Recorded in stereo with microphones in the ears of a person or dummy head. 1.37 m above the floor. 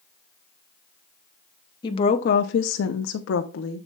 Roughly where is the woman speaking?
Left.